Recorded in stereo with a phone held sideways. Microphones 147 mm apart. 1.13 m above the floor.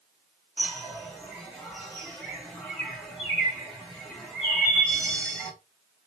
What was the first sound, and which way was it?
A bird, 5° left (ahead or behind).